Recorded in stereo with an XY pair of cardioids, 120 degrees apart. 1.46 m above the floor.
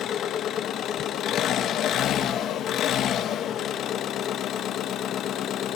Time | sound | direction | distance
0.0 | an engine running | 60° left | 1.3 m